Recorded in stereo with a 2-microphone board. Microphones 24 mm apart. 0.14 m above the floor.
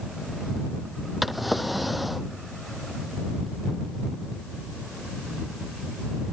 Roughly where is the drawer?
Centre.